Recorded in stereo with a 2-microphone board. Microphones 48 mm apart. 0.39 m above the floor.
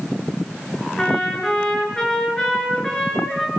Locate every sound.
1.0 s a trumpet: 15° left (ahead or behind), 7 m